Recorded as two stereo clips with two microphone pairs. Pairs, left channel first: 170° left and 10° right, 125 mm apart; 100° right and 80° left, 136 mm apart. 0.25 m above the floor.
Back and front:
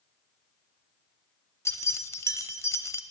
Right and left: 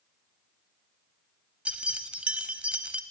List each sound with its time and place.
1.6 s keys jangling: 150° left, 0.6 m